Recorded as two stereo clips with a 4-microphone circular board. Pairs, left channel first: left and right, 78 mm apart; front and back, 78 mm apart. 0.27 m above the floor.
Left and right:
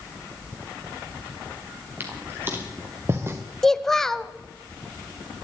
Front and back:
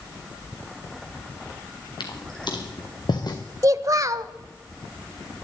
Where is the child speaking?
175° left, 0.7 m.